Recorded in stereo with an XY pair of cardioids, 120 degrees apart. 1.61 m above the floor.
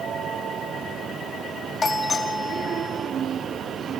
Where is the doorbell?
25° left, 5.5 m.